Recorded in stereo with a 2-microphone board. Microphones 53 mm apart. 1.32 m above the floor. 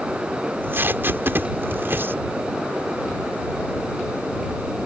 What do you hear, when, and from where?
0.4 s tape being pulled: 45° right (ahead or behind)